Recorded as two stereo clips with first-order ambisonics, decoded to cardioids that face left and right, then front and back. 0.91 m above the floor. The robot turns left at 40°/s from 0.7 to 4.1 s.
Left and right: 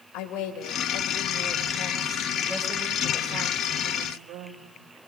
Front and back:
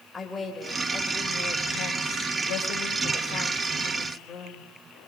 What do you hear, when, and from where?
0.1 s a woman speaking: 75° left, 4 m; by 4.7 s 60° right, 4 m